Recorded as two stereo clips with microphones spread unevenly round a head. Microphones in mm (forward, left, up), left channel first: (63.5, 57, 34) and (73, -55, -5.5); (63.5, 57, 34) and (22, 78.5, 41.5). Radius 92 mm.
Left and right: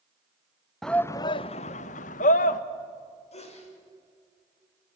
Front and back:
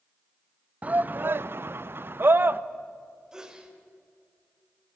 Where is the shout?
155° right, 0.5 m; by 2.6 s 110° left, 1.1 m.